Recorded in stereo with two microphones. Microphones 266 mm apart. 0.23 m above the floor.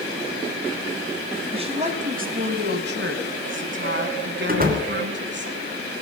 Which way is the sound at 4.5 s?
35° right (ahead or behind).